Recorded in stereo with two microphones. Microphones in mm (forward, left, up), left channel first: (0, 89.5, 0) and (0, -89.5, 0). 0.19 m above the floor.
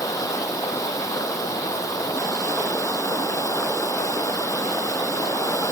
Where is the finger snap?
No finger snap in this recording.